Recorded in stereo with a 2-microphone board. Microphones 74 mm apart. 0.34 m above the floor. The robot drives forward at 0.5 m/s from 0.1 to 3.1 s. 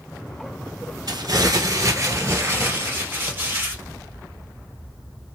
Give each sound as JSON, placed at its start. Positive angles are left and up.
{"t": 1.1, "sound": "crumpling", "side_deg": -60, "distance_m": 0.9}